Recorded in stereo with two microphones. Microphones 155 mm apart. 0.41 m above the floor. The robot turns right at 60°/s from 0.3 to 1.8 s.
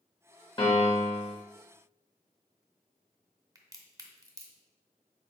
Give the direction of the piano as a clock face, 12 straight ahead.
10 o'clock.